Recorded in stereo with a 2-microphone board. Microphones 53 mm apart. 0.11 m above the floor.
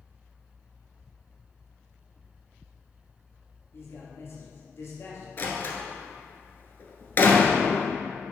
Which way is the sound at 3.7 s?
50° left (ahead or behind).